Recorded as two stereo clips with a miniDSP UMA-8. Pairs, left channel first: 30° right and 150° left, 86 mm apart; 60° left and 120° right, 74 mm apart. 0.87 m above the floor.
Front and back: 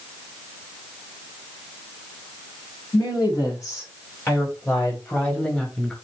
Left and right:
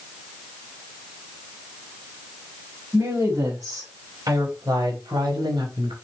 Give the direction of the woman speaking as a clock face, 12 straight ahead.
2 o'clock.